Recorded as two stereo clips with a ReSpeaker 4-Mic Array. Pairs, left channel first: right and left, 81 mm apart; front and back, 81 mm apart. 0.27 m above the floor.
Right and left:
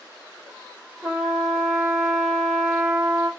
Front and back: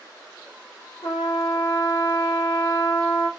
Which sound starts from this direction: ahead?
A trumpet, at 1.0 s.